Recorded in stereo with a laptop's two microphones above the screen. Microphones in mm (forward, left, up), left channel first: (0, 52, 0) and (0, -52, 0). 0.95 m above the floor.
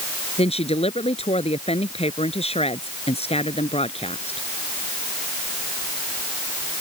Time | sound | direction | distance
0.4 | a woman speaking | 75° left (ahead or behind) | ?